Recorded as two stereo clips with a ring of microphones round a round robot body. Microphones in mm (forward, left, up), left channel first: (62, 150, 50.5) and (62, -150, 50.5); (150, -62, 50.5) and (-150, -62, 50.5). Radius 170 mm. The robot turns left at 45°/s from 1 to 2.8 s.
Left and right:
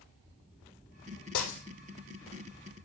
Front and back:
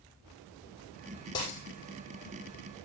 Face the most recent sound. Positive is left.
turn(degrees=15)